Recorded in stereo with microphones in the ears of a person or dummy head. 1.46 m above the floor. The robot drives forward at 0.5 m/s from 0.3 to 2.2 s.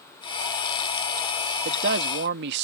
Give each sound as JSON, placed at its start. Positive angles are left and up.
{"t": 1.6, "sound": "a man speaking", "side_deg": -65}